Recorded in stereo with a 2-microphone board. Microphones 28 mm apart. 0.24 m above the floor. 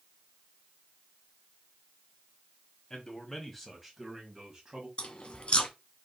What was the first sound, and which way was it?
A man speaking, 20° left (ahead or behind).